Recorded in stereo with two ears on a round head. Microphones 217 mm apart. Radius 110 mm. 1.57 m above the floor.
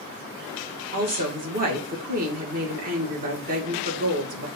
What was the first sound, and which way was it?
A woman speaking, 35° right (ahead or behind).